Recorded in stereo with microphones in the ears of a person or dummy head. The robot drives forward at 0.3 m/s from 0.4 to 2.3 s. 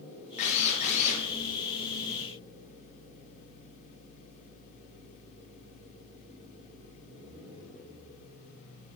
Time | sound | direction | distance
0.4 | a drill | 40° left (ahead or behind) | 2.5 m